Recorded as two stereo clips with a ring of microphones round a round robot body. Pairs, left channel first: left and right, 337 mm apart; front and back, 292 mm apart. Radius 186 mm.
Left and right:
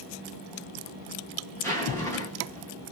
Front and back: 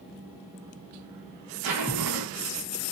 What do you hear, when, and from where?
1.6 s a zipper: 175° left, 1.2 m